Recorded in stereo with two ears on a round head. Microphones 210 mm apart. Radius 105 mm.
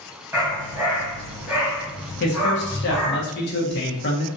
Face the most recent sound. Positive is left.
turn(degrees=50)  # may be behind; listen again after turning